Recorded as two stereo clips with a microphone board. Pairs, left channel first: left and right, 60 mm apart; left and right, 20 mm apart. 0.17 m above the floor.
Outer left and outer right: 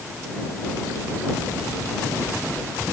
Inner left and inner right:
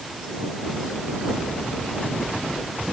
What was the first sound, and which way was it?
Only background noise.